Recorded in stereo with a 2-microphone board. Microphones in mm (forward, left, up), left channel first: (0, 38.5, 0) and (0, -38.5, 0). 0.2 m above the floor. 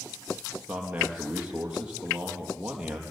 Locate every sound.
0.7 s a man speaking: 15° right (ahead or behind), 5 m